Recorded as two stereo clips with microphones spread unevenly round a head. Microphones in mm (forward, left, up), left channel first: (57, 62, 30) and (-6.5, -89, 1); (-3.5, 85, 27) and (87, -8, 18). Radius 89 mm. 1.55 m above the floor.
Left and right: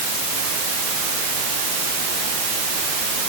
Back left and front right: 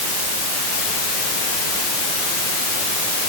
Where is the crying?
No crying in this recording.